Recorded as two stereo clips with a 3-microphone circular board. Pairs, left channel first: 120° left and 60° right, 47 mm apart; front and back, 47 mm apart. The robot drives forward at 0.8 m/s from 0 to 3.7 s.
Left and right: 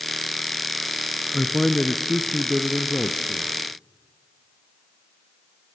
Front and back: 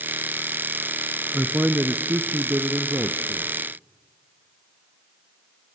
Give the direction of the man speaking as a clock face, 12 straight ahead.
5 o'clock.